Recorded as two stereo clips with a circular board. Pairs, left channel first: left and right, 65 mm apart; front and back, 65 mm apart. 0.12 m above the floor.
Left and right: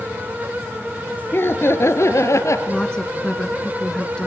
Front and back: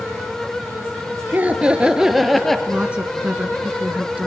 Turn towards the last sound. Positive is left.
turn(degrees=140)